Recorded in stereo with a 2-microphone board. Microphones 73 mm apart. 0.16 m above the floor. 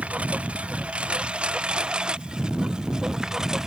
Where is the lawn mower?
20° right (ahead or behind); by 3.7 s 10° right (ahead or behind).